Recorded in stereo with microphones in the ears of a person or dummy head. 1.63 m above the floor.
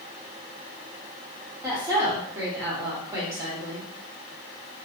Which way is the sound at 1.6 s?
15° right (ahead or behind).